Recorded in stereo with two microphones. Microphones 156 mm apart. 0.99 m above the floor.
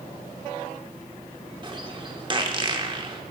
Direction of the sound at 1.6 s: 30° right (ahead or behind).